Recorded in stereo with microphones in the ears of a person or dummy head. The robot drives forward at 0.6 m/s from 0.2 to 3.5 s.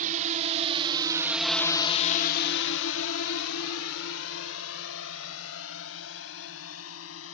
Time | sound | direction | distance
0.0 | a drone | 45° right (ahead or behind) | ?